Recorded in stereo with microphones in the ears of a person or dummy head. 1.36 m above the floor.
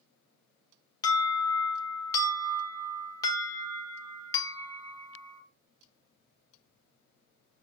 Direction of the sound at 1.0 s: 20° left (ahead or behind).